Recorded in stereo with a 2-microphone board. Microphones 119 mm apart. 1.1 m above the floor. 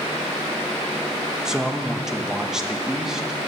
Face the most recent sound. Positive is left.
turn(degrees=-5)  # may be behind; listen again after turning